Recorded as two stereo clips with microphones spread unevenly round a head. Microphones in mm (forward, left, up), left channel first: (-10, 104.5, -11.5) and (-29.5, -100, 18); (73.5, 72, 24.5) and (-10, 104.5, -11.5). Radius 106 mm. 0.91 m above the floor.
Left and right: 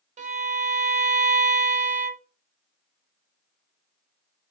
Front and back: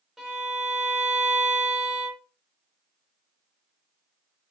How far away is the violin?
About 0.5 m.